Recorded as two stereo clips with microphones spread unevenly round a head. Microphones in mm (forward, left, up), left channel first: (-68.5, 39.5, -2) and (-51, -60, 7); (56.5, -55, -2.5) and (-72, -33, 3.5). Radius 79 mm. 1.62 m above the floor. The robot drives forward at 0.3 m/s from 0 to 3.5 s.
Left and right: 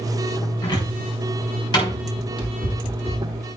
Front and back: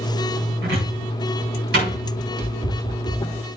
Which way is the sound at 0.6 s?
140° left.